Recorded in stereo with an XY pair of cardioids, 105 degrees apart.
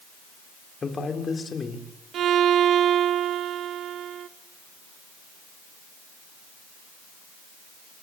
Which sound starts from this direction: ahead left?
A man speaking, at 0.8 s.